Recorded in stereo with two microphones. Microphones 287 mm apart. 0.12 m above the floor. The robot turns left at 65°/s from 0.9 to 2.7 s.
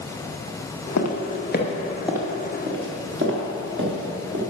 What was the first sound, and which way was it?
Footsteps, 70° left (ahead or behind).